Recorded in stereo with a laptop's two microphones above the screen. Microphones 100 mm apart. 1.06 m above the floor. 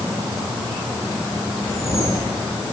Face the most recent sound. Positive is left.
turn(degrees=85)